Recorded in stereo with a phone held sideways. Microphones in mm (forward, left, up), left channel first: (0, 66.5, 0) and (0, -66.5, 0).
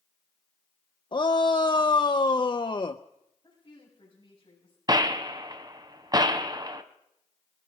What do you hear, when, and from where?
1.1 s a shout: 35° left (ahead or behind), 0.5 m
3.4 s a woman speaking: 30° left (ahead or behind), 6 m
4.9 s a gunshot: 30° right (ahead or behind), 0.9 m